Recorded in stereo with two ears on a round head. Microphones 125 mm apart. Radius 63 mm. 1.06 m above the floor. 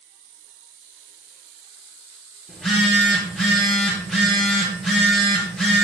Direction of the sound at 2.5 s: 5° left (ahead or behind).